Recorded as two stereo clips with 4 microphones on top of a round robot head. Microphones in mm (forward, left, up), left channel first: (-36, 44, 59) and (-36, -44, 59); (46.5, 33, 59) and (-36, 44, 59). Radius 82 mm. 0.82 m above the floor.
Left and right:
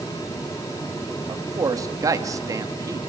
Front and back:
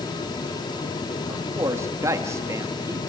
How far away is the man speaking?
About 1.7 m.